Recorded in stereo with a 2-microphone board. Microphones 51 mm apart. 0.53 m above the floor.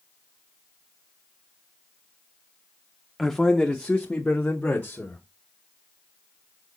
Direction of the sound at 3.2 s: 5° left (ahead or behind).